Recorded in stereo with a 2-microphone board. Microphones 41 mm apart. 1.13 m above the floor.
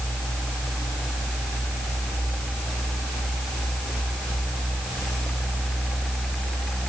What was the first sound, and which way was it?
Only background noise.